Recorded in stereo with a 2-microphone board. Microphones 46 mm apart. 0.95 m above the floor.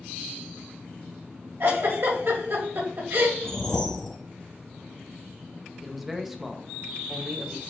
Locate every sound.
1.6 s a giggle: 65° right (ahead or behind), 1.9 m
3.4 s a whoosh: 10° left (ahead or behind), 1.7 m
5.8 s a man speaking: centre (ahead or behind), 0.8 m